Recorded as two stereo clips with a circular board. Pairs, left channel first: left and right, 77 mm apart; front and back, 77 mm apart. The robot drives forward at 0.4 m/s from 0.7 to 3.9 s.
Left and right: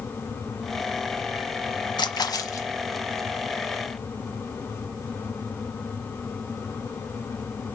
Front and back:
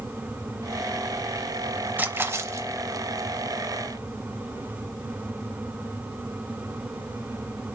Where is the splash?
115° left, 0.5 m; by 2.7 s 135° left, 0.7 m.